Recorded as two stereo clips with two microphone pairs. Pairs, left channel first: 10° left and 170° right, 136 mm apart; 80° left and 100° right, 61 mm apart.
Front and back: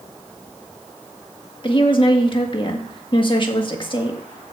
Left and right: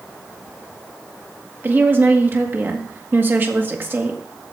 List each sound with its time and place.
1.6 s a woman speaking: 40° right, 1.8 m